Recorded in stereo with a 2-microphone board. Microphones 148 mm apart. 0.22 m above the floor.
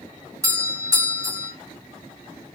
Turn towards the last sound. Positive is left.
turn(degrees=-20)  # may be behind; listen again after turning